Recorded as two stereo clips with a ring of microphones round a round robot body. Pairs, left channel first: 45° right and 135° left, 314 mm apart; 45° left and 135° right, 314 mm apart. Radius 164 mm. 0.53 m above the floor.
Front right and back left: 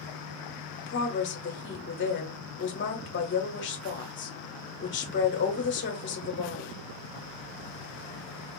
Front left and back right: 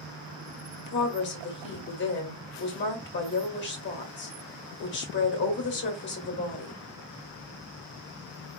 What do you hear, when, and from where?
0.9 s a woman speaking: straight ahead, 1.4 m